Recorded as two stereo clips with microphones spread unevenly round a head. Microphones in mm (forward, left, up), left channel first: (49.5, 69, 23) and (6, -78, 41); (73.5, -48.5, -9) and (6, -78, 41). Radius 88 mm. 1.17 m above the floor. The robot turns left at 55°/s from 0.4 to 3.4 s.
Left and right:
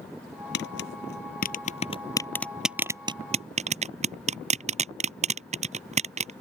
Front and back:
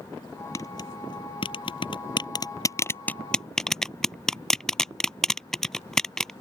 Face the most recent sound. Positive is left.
turn(degrees=-60)